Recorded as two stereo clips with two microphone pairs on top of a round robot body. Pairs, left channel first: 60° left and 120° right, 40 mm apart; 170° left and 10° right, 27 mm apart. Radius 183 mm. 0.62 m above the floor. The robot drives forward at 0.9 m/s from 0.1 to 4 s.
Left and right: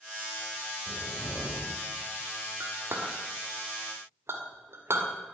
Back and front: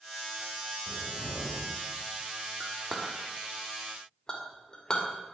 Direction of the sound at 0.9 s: 60° left.